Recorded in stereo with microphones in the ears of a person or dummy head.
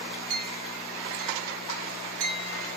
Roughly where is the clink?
Right.